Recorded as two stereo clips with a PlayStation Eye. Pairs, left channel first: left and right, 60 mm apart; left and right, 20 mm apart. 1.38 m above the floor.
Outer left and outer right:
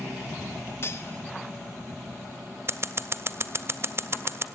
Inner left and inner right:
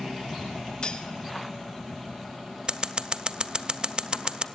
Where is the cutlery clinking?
45° left (ahead or behind), 0.9 m.